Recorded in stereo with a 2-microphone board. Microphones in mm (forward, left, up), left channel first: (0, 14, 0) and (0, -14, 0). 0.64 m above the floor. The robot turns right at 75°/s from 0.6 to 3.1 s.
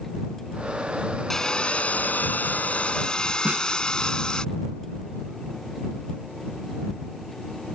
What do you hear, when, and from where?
1.3 s sawing: 15° left; by 4.5 s 150° left
3.5 s a snare drum: 45° right (ahead or behind)